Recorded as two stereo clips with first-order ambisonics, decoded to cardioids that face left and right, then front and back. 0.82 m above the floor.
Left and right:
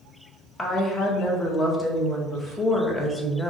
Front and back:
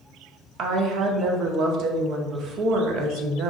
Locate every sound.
0.6 s a woman speaking: 165° left, 0.5 m